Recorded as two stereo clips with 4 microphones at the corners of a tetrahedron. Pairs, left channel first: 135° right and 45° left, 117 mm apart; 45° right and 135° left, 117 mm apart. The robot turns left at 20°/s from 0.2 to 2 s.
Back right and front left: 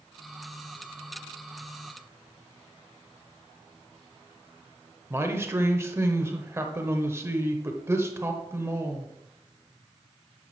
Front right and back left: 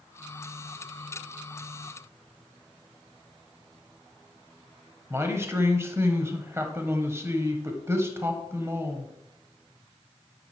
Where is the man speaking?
95° left, 1.0 m.